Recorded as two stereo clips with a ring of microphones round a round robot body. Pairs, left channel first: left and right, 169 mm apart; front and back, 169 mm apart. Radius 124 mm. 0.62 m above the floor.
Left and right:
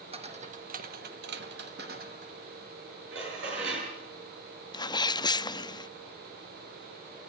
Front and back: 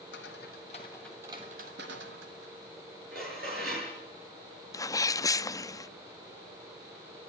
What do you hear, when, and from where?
0.1 s footsteps: 35° right, 1.6 m; by 2.5 s 155° right, 2 m
3.1 s dishes clattering: 125° right, 7.5 m
4.7 s a sneeze: 50° left, 0.6 m